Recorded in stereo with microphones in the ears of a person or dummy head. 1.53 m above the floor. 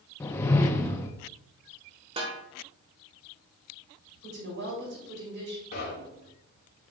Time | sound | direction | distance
0.2 | a whoosh | 15° left (ahead or behind) | 0.6 m
2.2 | a snare drum | 35° right (ahead or behind) | 1.4 m
4.2 | a woman speaking | 70° right (ahead or behind) | 3.5 m
5.7 | knocking | 50° left (ahead or behind) | 1.9 m